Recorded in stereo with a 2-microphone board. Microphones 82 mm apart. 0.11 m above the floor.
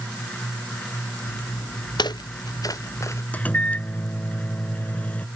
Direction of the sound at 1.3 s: 75° left (ahead or behind).